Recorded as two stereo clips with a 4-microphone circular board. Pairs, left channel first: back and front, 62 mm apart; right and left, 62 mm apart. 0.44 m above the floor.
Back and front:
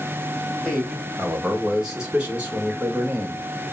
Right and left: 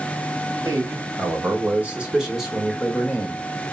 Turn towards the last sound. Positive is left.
turn(degrees=-40)